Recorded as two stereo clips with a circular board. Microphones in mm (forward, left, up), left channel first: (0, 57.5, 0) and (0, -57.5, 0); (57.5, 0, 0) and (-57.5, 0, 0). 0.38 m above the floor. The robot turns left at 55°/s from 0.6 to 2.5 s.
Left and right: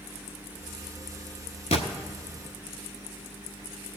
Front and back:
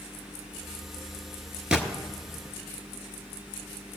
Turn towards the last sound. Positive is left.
turn(degrees=55)